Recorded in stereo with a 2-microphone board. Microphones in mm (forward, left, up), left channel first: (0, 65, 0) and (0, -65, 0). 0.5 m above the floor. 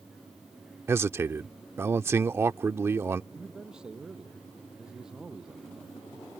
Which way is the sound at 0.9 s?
20° right (ahead or behind).